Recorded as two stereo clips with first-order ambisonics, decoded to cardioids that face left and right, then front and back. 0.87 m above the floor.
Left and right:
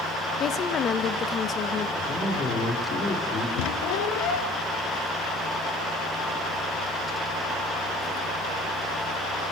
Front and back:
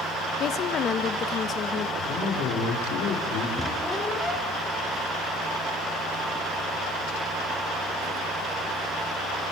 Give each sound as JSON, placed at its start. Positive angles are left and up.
{"t": 0.4, "sound": "a woman speaking", "azimuth_deg": 40, "distance_m": 0.8}
{"t": 2.0, "sound": "a man speaking", "azimuth_deg": 30, "distance_m": 3.0}
{"t": 3.6, "sound": "a squeak", "azimuth_deg": 80, "distance_m": 1.7}